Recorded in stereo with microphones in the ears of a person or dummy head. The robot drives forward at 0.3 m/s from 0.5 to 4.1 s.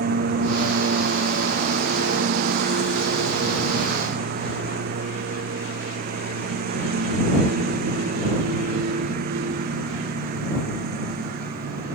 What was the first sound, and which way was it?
A lawn mower, 55° right (ahead or behind).